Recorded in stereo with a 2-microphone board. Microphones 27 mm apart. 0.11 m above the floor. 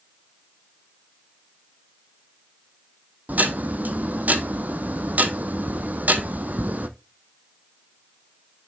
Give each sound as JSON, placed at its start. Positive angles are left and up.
{"t": 3.3, "sound": "ticking", "side_deg": -75, "distance_m": 0.8}